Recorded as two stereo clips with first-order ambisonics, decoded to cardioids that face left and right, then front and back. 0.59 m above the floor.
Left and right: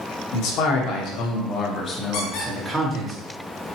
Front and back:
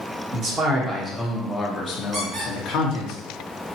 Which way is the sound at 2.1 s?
110° left.